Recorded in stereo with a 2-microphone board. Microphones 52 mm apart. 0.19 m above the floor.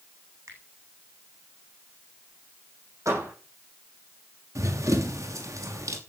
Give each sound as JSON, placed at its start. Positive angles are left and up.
{"t": 0.5, "sound": "a finger snap", "side_deg": -75, "distance_m": 9.0}
{"t": 3.0, "sound": "a door slam", "side_deg": -80, "distance_m": 6.5}
{"t": 4.5, "sound": "running footsteps", "side_deg": -80, "distance_m": 3.0}